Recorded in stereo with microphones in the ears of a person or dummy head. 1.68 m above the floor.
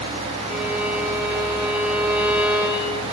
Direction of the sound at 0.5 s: 5° right (ahead or behind).